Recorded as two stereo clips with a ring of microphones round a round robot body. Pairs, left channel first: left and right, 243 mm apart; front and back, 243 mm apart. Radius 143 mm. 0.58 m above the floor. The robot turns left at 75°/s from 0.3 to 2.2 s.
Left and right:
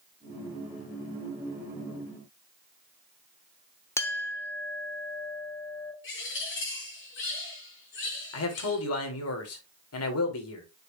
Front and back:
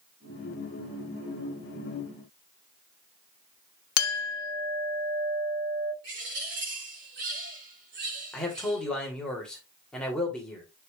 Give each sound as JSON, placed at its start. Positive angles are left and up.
{"t": 4.0, "sound": "a clink", "azimuth_deg": 10, "distance_m": 0.8}
{"t": 6.0, "sound": "a bird", "azimuth_deg": 130, "distance_m": 5.0}
{"t": 8.3, "sound": "a man speaking", "azimuth_deg": 85, "distance_m": 2.5}